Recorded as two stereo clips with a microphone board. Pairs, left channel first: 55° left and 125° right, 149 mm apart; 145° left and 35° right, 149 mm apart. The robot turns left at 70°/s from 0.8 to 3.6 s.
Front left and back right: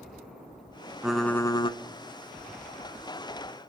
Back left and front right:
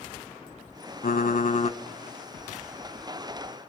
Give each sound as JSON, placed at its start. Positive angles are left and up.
{"t": 1.0, "sound": "typing on a keyboard", "azimuth_deg": 155, "distance_m": 0.6}